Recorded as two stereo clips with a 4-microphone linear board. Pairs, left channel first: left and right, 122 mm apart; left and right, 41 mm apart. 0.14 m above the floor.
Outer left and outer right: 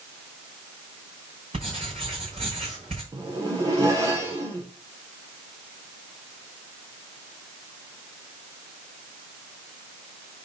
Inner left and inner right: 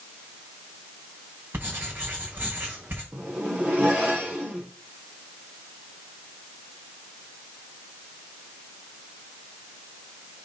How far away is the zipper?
About 3.5 m.